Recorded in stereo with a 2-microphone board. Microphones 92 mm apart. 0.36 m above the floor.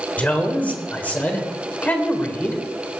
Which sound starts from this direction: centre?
A man speaking, at 0.2 s.